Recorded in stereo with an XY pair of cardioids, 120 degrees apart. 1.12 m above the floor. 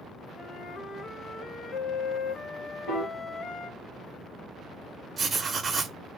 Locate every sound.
0.4 s a flute: 55° left, 0.7 m
2.9 s a piano: 65° left, 1.0 m
5.2 s writing: 35° right, 0.5 m